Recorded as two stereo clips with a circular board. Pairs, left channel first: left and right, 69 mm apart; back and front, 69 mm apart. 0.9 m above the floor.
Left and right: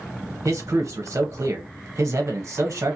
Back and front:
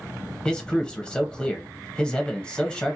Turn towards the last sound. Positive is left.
turn(degrees=-105)